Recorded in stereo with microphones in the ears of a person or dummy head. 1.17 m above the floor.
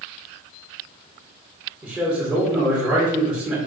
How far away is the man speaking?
About 1.7 m.